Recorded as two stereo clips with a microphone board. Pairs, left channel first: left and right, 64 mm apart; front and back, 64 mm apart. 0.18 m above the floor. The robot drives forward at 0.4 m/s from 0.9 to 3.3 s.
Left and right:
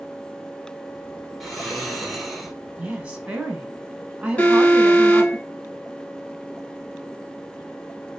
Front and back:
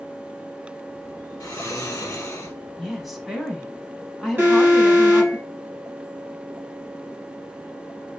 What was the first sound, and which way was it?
Snoring, straight ahead.